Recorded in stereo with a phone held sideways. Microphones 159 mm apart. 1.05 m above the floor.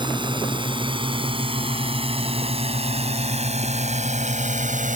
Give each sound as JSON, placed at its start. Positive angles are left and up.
{"t": 0.0, "sound": "a drone", "side_deg": -30}